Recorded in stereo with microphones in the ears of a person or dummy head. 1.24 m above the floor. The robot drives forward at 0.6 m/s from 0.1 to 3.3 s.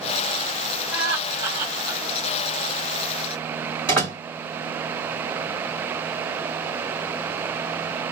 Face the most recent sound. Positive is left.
turn(degrees=5)  # may be behind; listen again after turning